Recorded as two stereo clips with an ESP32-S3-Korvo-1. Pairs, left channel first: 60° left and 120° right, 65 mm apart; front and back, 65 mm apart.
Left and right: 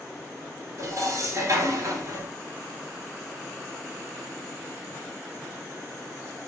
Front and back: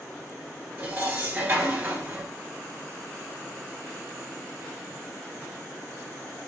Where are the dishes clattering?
125° right, 1.6 m.